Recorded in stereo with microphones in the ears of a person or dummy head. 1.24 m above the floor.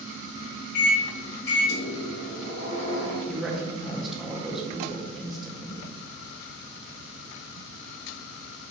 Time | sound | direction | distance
0.7 | a microwave | 70° left (ahead or behind) | 0.9 m
3.3 | a woman speaking | 5° right (ahead or behind) | 0.8 m